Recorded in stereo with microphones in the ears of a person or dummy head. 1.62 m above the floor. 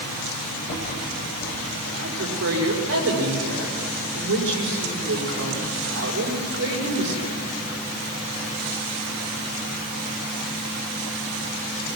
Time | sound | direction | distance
0.7 | a rattle | 40° left (ahead or behind) | 4 m
2.0 | a woman speaking | 75° right (ahead or behind) | 5.5 m